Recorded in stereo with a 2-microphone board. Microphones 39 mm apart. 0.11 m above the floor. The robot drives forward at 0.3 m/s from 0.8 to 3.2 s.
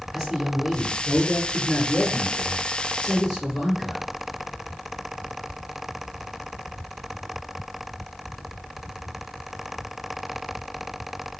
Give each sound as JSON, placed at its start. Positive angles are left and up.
{"t": 0.1, "sound": "a man speaking", "side_deg": -5, "distance_m": 1.8}